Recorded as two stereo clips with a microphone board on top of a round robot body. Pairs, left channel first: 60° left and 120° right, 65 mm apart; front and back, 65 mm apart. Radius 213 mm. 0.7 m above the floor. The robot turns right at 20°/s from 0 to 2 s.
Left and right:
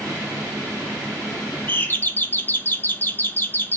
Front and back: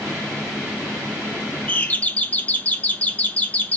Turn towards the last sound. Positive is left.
turn(degrees=45)